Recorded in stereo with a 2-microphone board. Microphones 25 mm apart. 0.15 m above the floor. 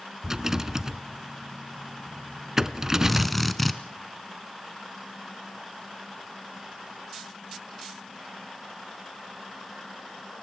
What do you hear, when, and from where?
0.2 s a rattle: 25° right (ahead or behind), 0.8 m
3.1 s a drill: centre (ahead or behind), 1.6 m